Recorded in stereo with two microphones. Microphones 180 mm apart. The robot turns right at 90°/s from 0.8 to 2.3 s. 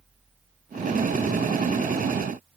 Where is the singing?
No singing in this recording.